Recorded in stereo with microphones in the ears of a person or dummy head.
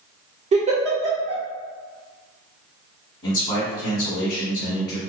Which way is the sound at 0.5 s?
30° right (ahead or behind).